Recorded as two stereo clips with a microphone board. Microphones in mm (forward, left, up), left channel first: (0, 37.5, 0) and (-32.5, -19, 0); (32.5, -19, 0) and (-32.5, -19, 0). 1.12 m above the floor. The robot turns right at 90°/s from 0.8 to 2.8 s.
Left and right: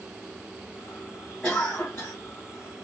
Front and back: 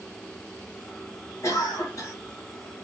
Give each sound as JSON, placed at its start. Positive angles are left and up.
{"t": 1.4, "sound": "a cough", "azimuth_deg": -15, "distance_m": 1.2}